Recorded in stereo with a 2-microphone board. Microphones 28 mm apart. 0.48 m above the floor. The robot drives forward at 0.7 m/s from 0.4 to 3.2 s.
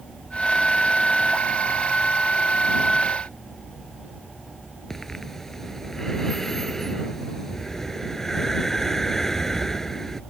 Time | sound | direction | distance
4.9 | breathing | 10° left (ahead or behind) | ?